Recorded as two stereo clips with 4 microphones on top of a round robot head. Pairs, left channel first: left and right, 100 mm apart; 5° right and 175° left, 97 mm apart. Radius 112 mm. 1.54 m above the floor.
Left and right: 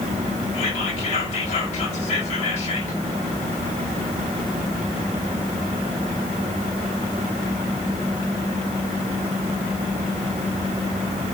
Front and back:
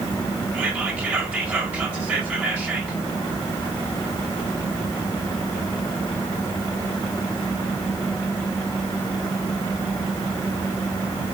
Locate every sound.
0.5 s whispering: 100° left, 1.5 m